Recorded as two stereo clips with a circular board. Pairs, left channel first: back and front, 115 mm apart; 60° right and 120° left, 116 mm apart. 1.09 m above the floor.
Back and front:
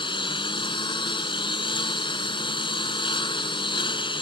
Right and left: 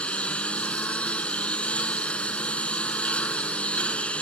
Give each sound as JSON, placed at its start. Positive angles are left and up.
{"t": 0.0, "sound": "a lawn mower", "azimuth_deg": -140}